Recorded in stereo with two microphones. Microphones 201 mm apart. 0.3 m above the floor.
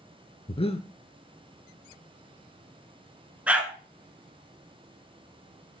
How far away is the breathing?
About 0.8 m.